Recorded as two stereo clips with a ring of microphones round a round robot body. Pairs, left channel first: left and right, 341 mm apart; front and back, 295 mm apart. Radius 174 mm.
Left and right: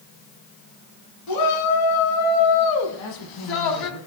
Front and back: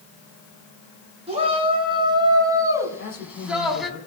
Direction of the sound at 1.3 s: 110° left.